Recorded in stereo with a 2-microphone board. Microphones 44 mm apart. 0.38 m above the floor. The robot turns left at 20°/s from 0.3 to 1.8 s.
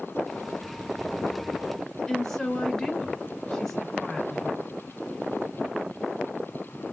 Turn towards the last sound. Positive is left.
turn(degrees=10)  # may be behind; listen again after turning